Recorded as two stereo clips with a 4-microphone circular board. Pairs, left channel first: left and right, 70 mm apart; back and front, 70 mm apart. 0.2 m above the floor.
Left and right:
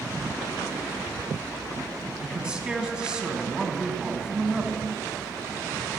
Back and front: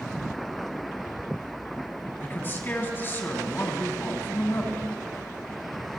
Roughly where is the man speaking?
Behind.